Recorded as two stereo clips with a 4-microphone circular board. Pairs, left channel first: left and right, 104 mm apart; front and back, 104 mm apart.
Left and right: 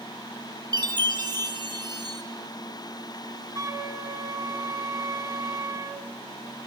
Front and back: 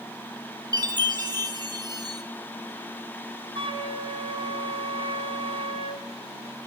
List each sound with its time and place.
0.7 s a chime: 135° right, 0.9 m
3.5 s a flute: 150° right, 0.8 m